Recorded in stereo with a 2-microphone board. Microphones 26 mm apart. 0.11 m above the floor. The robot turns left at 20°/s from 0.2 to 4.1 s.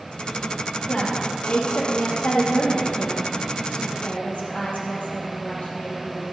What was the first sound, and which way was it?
A woman speaking, 135° left.